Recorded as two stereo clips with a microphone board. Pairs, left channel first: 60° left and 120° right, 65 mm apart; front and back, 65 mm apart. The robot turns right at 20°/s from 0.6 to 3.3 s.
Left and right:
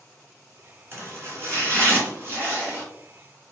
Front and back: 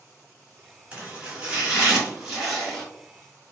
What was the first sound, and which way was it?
Chopping, 125° right.